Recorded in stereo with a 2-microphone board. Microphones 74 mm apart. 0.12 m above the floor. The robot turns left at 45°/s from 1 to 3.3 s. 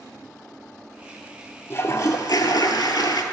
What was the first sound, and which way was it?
A toilet flushing, 140° left.